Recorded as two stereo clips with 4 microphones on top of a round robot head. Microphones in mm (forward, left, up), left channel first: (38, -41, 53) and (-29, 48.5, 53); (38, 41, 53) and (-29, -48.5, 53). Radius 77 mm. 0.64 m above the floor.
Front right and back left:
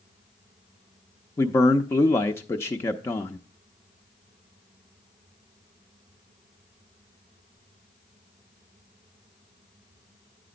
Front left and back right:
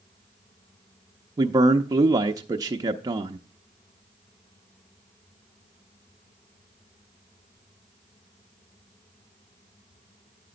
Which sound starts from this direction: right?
A man speaking, at 1.4 s.